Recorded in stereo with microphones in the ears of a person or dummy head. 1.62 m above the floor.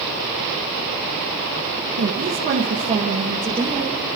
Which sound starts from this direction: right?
A woman speaking, at 2.0 s.